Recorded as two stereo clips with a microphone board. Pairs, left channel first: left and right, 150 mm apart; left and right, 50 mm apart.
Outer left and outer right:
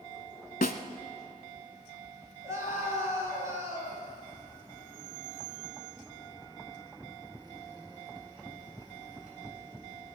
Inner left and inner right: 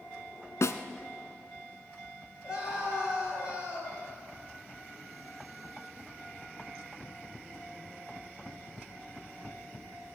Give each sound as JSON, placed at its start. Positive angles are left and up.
{"t": 0.6, "sound": "a snare drum", "side_deg": 75, "distance_m": 0.9}
{"t": 2.4, "sound": "a scream", "side_deg": -20, "distance_m": 5.0}